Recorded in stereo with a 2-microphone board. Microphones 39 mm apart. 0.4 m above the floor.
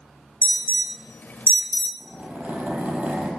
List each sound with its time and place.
0.4 s an alarm: 55° left (ahead or behind), 1.1 m
2.0 s a zipper: 45° right (ahead or behind), 4.5 m